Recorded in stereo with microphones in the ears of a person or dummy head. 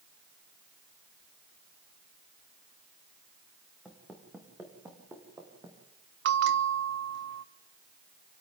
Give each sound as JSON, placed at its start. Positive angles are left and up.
{"t": 3.9, "sound": "footsteps", "side_deg": -10, "distance_m": 4.5}
{"t": 6.2, "sound": "a bell", "side_deg": -65, "distance_m": 0.9}